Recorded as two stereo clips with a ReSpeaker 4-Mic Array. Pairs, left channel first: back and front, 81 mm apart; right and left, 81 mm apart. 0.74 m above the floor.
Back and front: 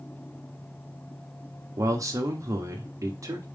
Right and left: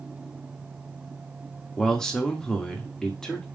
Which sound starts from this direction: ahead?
A man speaking, at 1.8 s.